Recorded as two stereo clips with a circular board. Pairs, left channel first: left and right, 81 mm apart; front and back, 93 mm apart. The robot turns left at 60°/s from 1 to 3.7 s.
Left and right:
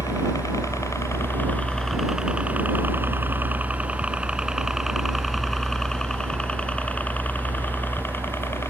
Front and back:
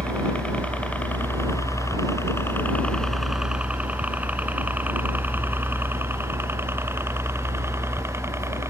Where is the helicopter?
70° left; by 8.7 s 130° left.